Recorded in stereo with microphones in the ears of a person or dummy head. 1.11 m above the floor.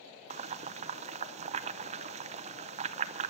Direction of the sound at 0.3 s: 35° right (ahead or behind).